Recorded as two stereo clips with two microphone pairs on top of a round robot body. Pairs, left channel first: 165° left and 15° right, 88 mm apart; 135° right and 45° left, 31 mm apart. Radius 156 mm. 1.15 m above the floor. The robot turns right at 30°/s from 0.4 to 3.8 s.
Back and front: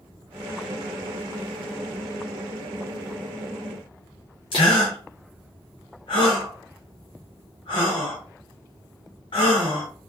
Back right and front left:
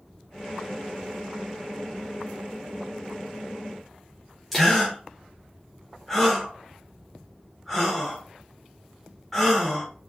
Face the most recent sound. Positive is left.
turn(degrees=140)